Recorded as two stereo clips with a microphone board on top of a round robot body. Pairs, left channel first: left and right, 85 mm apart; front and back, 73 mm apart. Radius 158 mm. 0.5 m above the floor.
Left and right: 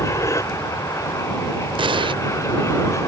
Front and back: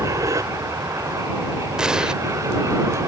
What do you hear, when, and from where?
0.0 s an aircraft: 140° left
1.8 s an explosion: 100° right